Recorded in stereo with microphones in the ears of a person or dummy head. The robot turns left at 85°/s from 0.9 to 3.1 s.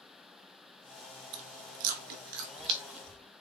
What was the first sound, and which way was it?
Chewing, 25° right (ahead or behind).